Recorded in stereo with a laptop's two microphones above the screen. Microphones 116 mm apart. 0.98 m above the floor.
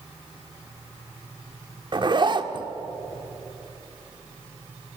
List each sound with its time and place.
1.9 s a zipper: 40° right (ahead or behind), 1.3 m